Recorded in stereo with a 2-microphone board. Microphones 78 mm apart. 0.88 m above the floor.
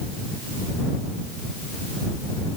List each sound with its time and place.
Only background noise.